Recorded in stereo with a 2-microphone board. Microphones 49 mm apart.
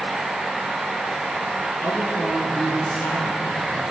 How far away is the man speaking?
About 5.5 m.